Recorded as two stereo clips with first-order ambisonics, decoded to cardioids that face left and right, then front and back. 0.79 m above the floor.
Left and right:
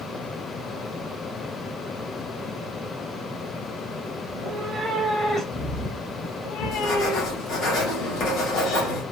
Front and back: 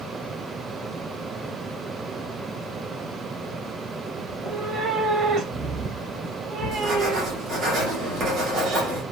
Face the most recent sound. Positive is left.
turn(degrees=120)